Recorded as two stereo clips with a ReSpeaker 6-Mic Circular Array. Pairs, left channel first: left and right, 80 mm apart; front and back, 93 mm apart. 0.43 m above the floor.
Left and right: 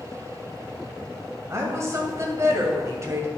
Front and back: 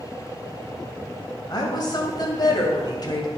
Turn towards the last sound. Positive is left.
turn(degrees=-40)